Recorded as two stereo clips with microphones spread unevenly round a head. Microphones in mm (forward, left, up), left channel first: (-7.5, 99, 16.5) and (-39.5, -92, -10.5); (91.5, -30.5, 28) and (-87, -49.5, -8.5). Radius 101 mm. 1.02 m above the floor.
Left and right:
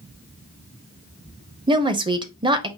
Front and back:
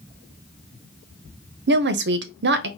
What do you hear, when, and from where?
1.7 s a woman speaking: 165° right, 0.6 m